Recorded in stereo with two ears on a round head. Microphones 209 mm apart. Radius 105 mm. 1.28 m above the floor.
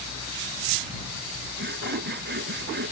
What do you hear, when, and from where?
1.6 s sawing: 45° right (ahead or behind)